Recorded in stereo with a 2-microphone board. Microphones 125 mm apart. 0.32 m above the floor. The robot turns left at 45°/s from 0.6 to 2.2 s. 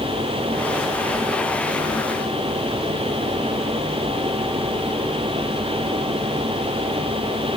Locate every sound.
Only background noise.